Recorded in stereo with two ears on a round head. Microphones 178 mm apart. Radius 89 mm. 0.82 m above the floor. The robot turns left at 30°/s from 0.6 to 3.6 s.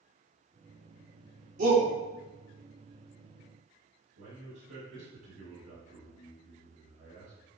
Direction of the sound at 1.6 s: 45° right (ahead or behind).